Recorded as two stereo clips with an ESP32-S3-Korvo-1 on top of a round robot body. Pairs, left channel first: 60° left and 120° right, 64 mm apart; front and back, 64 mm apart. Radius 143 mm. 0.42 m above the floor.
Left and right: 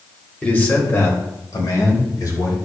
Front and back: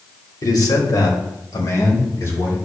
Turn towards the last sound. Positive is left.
turn(degrees=45)